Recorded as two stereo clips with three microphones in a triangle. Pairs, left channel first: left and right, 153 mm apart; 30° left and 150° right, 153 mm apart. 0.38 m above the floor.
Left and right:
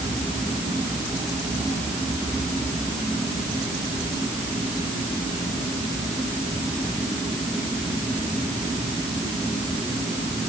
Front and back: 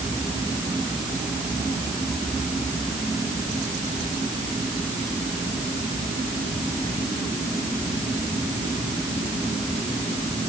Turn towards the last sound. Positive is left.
No sound to turn to.